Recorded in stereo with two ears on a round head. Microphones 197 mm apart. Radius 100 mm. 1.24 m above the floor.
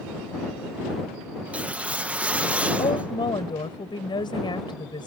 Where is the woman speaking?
20° left (ahead or behind).